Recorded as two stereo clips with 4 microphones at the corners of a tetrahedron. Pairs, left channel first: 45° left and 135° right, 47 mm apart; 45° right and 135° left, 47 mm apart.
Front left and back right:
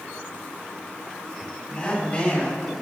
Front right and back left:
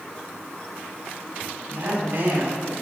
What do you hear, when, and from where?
1.7 s a woman speaking: 110° left, 3 m; by 2.7 s 100° left, 2.5 m